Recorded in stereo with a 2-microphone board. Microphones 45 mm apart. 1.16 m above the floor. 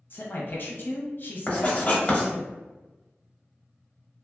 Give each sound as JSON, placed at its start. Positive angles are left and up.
{"t": 0.1, "sound": "a man speaking", "side_deg": 50, "distance_m": 0.8}
{"t": 1.5, "sound": "writing", "side_deg": 25, "distance_m": 0.9}